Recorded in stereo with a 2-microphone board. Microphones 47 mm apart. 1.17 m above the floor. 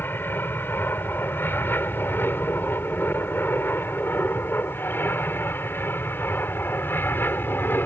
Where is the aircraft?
50° left (ahead or behind).